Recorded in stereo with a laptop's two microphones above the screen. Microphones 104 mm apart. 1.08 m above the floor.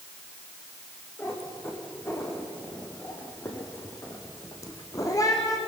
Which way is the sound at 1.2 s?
25° left (ahead or behind).